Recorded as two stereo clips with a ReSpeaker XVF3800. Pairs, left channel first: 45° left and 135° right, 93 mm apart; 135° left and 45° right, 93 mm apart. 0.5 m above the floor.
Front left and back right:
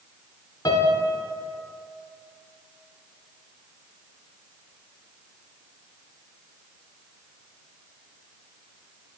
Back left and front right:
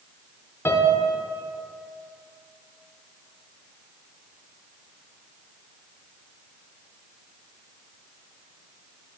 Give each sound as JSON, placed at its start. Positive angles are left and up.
{"t": 0.7, "sound": "a piano", "azimuth_deg": 80, "distance_m": 0.6}